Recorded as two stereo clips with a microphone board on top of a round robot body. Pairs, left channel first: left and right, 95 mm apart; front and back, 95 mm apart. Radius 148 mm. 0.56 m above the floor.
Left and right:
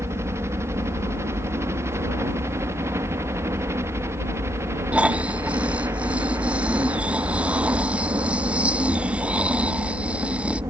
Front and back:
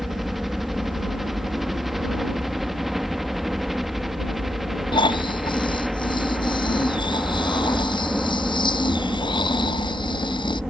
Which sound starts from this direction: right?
A helicopter, at 0.0 s.